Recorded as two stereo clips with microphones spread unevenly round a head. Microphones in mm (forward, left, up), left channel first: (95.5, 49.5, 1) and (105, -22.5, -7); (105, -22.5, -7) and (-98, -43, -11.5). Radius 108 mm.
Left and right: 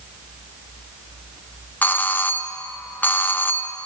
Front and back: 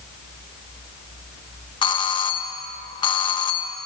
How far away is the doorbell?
About 1.4 m.